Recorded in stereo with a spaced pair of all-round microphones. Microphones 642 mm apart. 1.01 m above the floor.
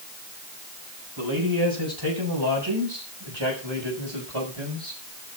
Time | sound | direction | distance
1.2 | a man speaking | 30° right (ahead or behind) | 6.5 m